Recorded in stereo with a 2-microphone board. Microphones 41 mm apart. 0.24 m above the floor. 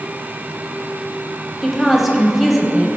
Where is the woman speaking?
Centre (ahead or behind), 0.9 m.